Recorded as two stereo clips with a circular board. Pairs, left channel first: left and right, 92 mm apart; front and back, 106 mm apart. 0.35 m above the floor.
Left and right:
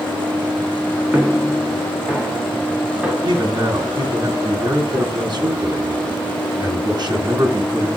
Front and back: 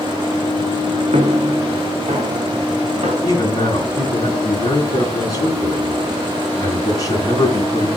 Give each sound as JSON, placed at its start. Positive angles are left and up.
{"t": 1.1, "sound": "footsteps", "azimuth_deg": -170, "distance_m": 1.3}
{"t": 3.2, "sound": "a man speaking", "azimuth_deg": -55, "distance_m": 2.5}